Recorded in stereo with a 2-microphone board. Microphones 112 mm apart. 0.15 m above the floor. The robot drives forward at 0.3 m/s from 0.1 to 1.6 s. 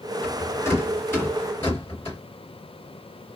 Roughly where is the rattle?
Left.